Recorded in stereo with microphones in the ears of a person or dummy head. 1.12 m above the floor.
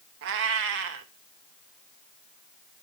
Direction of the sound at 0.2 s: 55° right (ahead or behind).